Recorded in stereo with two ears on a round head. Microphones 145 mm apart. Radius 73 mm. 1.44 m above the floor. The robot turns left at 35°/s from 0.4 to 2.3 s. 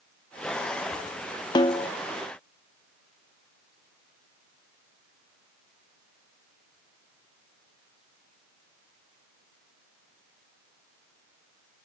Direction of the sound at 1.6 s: 25° left (ahead or behind).